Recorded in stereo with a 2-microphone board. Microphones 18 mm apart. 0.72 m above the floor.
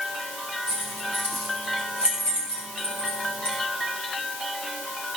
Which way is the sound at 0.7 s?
30° left (ahead or behind).